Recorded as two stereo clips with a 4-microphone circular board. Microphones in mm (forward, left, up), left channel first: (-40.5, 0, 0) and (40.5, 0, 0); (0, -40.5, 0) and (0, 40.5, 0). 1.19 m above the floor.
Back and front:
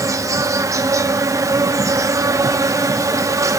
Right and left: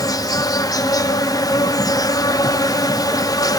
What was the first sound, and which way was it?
An insect, 50° right.